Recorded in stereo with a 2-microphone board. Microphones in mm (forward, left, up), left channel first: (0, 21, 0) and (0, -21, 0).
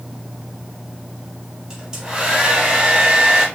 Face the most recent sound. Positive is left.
turn(degrees=-20)  # may be behind; listen again after turning